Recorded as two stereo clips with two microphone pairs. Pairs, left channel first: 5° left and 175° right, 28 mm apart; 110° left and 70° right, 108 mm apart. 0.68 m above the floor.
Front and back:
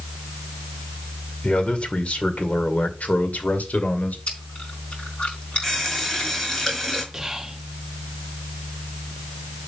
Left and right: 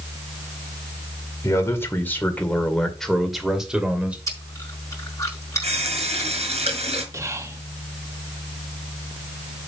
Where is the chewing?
50° left, 4.5 m.